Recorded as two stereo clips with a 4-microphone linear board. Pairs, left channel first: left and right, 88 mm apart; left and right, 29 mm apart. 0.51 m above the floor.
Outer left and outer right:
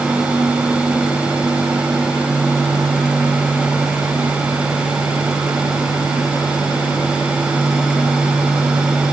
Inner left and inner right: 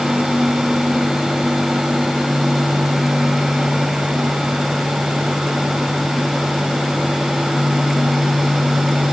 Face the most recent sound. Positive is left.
No sound to turn to.